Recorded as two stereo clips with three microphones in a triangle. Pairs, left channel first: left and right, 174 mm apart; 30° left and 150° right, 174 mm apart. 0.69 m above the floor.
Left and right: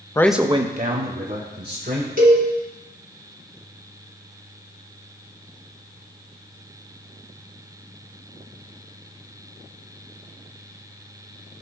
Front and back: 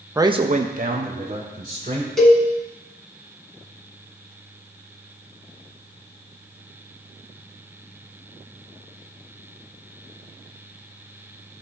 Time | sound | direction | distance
0.1 | a man speaking | 145° left | 0.5 m
2.2 | a cowbell | 60° right | 1.7 m